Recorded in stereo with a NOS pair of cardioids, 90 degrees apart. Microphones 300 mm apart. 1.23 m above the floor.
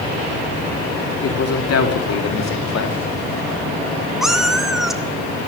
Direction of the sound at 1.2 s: 55° left.